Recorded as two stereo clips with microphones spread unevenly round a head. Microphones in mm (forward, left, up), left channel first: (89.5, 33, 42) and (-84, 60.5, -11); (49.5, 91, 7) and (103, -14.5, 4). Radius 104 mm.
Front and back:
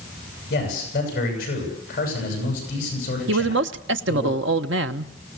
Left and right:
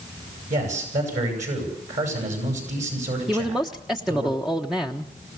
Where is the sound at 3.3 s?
150° right, 1.0 m.